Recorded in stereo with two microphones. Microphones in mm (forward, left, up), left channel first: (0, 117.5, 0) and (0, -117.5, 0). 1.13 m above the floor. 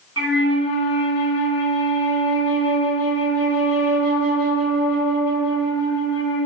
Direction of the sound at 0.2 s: 80° right.